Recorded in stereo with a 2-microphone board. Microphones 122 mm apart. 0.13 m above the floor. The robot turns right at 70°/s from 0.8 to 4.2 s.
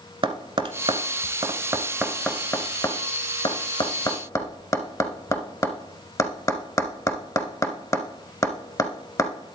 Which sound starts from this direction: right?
Tapping, at 0.2 s.